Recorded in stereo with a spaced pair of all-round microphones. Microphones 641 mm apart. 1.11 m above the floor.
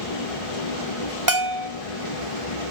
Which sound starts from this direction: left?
A machine running, at 0.0 s.